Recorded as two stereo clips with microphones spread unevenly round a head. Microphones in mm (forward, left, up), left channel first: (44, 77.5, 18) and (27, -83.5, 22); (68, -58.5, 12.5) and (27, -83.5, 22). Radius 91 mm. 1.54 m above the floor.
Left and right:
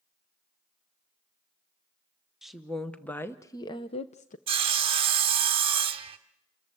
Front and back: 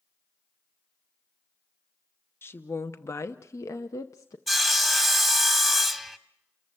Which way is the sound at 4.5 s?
70° right.